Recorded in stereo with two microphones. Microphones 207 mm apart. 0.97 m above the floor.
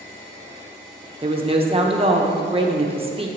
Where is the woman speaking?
25° right (ahead or behind), 0.8 m.